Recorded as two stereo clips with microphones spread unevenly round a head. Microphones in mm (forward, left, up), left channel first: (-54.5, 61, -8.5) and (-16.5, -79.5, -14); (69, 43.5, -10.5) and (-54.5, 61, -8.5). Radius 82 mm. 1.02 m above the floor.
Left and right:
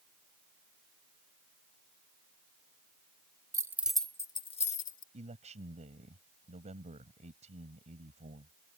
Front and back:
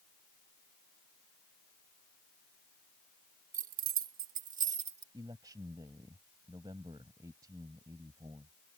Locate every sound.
3.5 s keys jangling: 140° right; by 5.0 s 135° left
5.1 s a man speaking: 120° right